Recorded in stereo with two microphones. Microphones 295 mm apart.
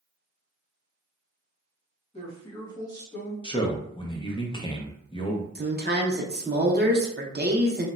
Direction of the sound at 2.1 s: 20° left (ahead or behind).